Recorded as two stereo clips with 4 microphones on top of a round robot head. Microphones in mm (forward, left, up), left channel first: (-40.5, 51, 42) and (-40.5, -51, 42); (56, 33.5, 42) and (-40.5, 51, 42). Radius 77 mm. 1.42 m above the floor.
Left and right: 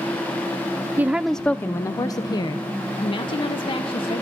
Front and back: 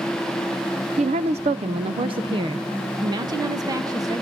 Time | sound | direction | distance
1.0 | a woman speaking | 160° right | 0.5 m